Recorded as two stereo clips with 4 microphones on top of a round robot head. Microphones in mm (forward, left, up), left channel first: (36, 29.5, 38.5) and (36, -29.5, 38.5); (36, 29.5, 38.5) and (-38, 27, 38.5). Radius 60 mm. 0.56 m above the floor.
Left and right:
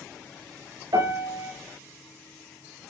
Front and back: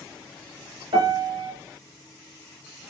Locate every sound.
0.9 s a piano: 135° right, 4 m